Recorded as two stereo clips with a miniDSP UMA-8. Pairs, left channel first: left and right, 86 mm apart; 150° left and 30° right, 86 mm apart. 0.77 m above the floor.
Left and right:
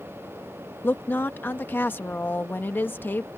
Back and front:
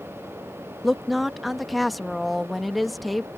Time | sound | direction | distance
0.8 | a woman speaking | 60° left | ?